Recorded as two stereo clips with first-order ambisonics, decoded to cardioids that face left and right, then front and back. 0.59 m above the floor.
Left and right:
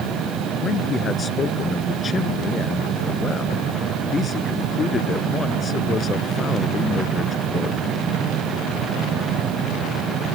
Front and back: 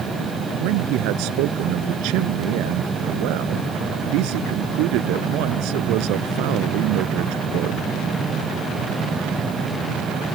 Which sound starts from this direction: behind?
A man speaking, at 0.6 s.